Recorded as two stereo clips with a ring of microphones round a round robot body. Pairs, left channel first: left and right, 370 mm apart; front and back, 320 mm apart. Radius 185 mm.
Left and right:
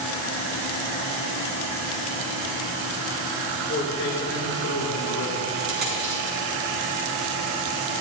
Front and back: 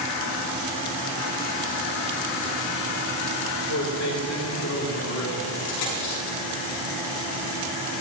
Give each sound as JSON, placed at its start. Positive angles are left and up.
{"t": 3.7, "sound": "a man speaking", "azimuth_deg": 30, "distance_m": 3.5}
{"t": 5.6, "sound": "a dropped coin", "azimuth_deg": -25, "distance_m": 5.5}